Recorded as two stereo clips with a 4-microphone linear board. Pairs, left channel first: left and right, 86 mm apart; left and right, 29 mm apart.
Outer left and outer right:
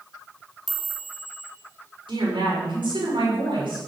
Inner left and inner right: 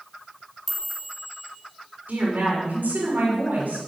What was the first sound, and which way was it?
A chime, 5° right (ahead or behind).